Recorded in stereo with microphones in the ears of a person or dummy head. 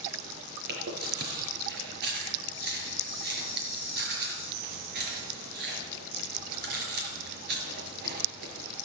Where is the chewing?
60° right (ahead or behind), 5.5 m.